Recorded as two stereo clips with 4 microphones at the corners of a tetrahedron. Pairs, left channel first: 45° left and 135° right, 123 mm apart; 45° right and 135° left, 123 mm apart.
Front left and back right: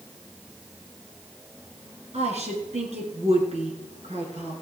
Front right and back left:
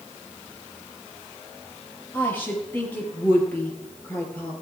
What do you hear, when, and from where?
2.1 s a woman speaking: 120° right, 3 m